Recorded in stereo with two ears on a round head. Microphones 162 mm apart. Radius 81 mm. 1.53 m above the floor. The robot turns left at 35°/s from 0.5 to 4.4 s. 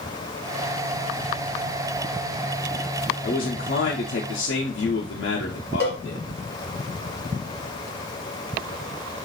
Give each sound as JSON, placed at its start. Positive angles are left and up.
{"t": 3.2, "sound": "a man speaking", "azimuth_deg": 130, "distance_m": 0.6}
{"t": 5.8, "sound": "a cowbell", "side_deg": 15, "distance_m": 1.0}